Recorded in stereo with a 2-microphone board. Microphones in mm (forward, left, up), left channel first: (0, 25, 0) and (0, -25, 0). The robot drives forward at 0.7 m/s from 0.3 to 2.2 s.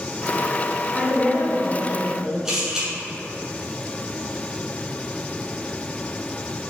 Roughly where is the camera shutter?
Centre.